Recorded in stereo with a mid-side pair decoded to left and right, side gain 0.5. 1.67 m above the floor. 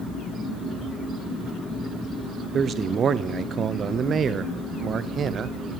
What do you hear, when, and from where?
2.5 s a man speaking: 45° right, 0.6 m